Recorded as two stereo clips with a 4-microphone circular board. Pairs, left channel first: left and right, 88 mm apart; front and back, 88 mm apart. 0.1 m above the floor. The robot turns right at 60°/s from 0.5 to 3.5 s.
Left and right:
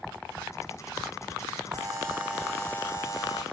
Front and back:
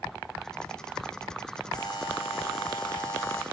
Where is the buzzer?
45° right, 3 m; by 3.4 s 55° left, 3 m.